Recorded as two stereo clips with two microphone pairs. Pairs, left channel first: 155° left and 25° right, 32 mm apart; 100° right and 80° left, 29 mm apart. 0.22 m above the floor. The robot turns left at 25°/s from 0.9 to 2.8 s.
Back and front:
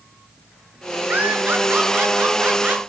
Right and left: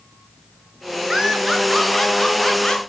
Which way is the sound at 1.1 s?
5° right.